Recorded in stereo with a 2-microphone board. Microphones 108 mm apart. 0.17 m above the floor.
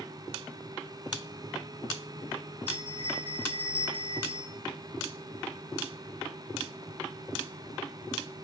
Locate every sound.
2.7 s a bell: 60° right (ahead or behind), 2.0 m